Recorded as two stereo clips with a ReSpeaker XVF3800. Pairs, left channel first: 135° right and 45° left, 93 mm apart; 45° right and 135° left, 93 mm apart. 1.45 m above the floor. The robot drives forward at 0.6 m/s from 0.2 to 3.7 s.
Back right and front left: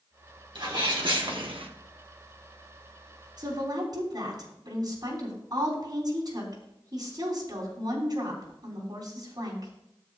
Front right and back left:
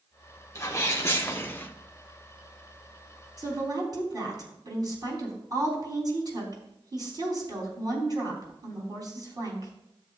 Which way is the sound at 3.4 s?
85° left.